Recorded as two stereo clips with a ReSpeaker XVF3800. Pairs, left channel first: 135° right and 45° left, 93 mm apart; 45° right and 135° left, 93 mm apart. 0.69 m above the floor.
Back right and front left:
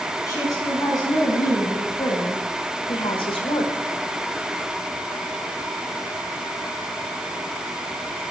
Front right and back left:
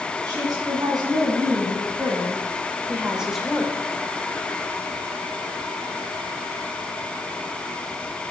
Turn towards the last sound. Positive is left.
turn(degrees=-120)